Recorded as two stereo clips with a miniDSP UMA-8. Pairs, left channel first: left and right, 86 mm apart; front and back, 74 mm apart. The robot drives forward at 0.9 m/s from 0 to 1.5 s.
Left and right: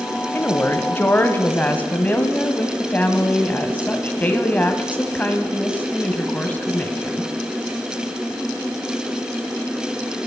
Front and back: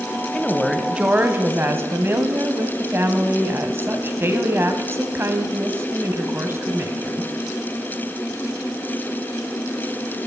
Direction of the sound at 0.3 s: 50° left.